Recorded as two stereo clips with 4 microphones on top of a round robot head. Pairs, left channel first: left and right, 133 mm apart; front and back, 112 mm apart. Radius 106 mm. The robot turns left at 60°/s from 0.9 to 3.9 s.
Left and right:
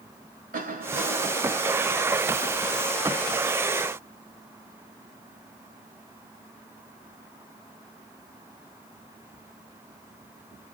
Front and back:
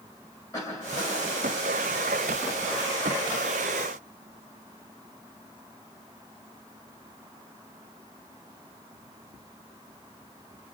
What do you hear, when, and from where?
0.5 s a cough: 70° right, 6 m; by 1.5 s 110° right, 6 m